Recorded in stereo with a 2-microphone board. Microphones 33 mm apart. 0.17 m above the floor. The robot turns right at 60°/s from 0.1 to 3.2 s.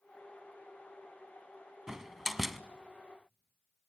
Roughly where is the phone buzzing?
No phone buzzing in this recording.